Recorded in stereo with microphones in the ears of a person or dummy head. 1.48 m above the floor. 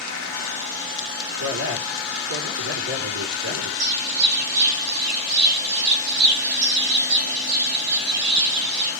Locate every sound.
1.4 s a man speaking: 85° right, 4 m
3.8 s a bird: 60° right (ahead or behind), 6 m